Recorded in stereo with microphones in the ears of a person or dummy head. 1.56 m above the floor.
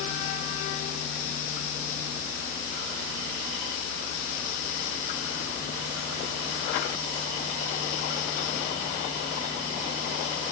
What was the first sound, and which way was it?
Only background noise.